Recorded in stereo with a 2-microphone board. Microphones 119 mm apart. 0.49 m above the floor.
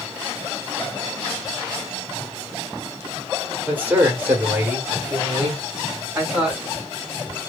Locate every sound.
3.7 s a man speaking: 15° right (ahead or behind), 1.0 m